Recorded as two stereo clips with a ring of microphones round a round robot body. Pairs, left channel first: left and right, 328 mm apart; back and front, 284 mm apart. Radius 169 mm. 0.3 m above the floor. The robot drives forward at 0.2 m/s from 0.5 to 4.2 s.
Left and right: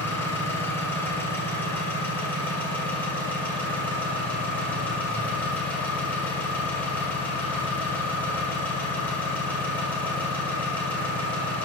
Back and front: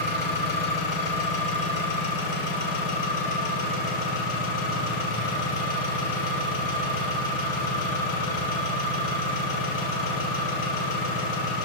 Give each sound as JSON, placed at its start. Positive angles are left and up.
{"t": 0.0, "sound": "an engine running", "azimuth_deg": 175, "distance_m": 1.9}